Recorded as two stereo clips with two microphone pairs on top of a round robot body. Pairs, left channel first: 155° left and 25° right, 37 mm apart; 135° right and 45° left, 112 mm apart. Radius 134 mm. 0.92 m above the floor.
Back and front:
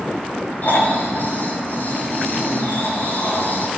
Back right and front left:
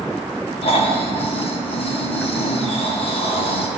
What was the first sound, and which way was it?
Snoring, 165° right.